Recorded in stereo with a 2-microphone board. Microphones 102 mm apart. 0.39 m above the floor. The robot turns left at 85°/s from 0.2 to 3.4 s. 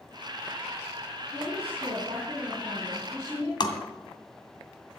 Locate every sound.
1.3 s a woman speaking: 45° right, 3.5 m; by 3.5 s 135° left, 3.5 m
3.6 s tapping: 50° left (ahead or behind), 1.9 m